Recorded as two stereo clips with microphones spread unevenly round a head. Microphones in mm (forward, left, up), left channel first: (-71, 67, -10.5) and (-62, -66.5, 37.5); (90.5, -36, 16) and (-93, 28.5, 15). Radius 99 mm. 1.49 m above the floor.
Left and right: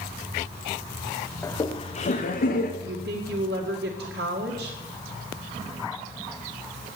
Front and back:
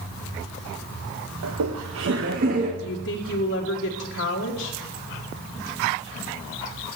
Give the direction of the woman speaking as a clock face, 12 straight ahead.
2 o'clock.